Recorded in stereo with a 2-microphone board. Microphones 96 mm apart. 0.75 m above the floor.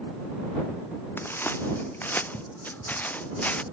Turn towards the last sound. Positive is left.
turn(degrees=15)  # may be behind; listen again after turning